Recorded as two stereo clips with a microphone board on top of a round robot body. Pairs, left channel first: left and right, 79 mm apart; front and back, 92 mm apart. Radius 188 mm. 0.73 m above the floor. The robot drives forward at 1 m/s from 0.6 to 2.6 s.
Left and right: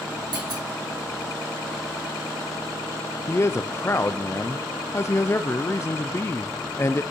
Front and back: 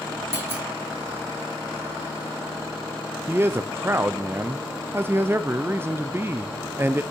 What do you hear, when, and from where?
0.3 s a clunk: 115° right, 1.8 m
3.3 s a man speaking: 125° left, 0.6 m